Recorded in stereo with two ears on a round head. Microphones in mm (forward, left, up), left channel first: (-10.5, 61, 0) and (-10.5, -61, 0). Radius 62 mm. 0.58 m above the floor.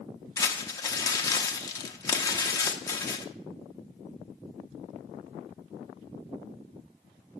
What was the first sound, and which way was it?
Crumpling, 25° left (ahead or behind).